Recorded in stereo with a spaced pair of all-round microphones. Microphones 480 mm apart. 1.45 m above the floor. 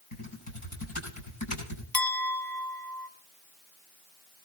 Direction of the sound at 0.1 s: 85° left.